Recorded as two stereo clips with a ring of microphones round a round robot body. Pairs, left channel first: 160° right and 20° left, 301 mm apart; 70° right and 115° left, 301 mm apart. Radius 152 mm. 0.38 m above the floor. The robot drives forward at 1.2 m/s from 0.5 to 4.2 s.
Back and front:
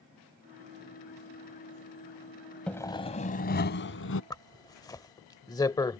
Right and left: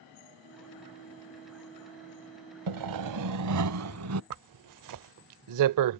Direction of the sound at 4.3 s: 125° left.